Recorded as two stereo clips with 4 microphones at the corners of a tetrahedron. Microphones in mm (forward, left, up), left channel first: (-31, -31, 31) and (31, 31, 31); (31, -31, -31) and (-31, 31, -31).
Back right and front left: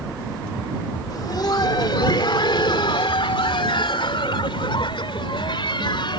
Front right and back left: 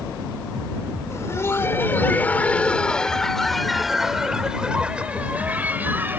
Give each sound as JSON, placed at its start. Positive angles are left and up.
{"t": 1.1, "sound": "laughter", "azimuth_deg": -100}